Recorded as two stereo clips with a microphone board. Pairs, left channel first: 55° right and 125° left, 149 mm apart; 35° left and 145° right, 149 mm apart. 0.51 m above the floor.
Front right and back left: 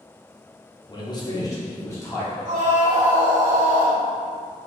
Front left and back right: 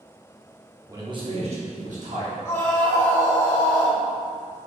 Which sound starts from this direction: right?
A man speaking, at 0.9 s.